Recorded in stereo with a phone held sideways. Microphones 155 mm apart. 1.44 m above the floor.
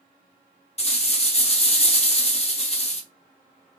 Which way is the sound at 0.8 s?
45° left (ahead or behind).